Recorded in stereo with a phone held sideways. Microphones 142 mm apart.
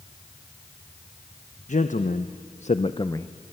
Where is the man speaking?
60° left (ahead or behind), 1.0 m; by 3.3 s 15° left (ahead or behind), 0.7 m.